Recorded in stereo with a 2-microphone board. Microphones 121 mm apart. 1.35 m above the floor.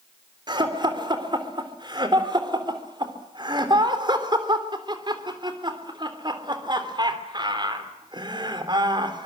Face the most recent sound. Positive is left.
turn(degrees=-40)  # may be behind; listen again after turning